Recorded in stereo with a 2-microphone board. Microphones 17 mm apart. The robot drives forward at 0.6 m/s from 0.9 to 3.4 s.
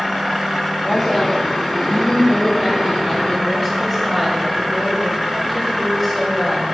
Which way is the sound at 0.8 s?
25° left (ahead or behind).